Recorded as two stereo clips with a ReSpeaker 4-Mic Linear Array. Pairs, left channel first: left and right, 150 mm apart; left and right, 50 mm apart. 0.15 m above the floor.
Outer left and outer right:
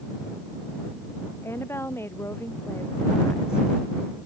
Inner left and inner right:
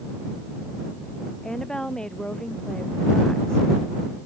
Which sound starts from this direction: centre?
A woman speaking, at 1.4 s.